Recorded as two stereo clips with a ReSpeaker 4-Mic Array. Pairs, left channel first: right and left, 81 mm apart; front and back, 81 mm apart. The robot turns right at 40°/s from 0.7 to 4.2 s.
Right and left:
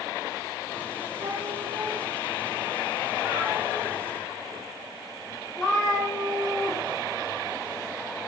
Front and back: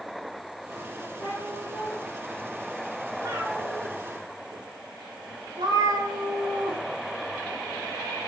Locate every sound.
1.2 s a cat meowing: 55° left, 7.5 m; by 6.8 s 175° left, 7.5 m